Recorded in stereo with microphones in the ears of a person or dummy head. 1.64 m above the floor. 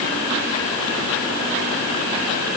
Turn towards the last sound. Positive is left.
No sound to turn to.